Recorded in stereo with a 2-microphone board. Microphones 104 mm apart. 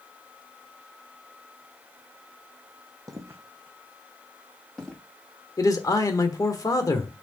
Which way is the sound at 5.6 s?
35° left (ahead or behind).